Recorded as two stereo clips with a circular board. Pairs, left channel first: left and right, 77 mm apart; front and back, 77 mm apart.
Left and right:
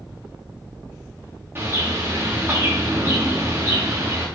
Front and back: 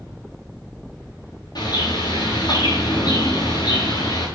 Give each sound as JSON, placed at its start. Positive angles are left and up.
{"t": 1.6, "sound": "a bird", "azimuth_deg": -25, "distance_m": 6.5}